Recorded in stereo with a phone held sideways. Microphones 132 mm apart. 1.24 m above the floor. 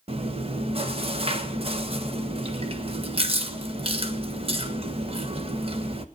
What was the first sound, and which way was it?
Chewing, 45° right (ahead or behind).